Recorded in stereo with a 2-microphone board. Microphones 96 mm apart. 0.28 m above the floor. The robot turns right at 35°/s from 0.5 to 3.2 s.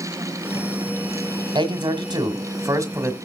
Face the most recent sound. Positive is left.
turn(degrees=-30)